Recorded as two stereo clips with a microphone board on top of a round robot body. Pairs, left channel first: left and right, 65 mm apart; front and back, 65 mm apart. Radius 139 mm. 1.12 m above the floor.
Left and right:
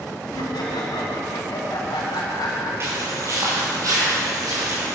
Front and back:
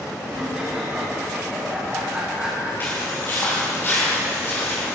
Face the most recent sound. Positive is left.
turn(degrees=-55)